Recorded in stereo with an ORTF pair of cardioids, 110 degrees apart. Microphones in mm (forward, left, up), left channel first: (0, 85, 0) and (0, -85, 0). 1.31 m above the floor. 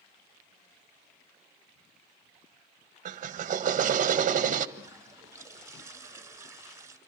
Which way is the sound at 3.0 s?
45° right.